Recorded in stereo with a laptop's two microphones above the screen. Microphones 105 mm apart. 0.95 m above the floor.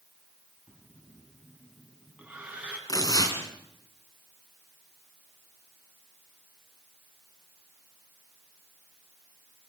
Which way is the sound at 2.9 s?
35° left (ahead or behind).